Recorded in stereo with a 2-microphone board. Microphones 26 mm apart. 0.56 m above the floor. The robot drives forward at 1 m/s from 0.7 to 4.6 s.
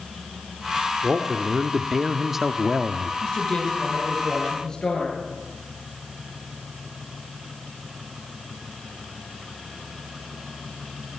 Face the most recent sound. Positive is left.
turn(degrees=30)  # may be behind; listen again after turning